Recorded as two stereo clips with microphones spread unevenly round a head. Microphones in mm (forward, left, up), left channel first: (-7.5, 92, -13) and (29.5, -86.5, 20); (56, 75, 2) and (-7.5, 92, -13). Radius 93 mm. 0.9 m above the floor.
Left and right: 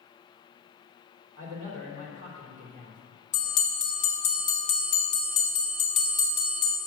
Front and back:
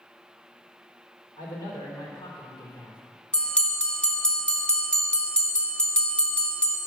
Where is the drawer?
I don't hear a drawer.